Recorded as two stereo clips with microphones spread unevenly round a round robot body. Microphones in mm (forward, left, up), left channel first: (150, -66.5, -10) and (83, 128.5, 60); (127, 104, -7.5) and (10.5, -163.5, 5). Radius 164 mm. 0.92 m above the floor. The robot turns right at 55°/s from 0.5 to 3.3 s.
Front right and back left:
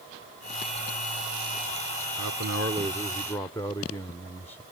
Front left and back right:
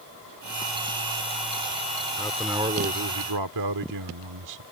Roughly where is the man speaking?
Behind left.